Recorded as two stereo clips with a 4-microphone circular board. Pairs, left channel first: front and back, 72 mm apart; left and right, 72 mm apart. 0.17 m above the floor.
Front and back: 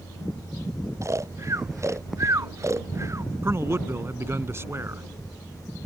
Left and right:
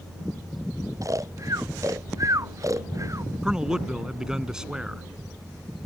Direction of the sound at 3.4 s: 165° right.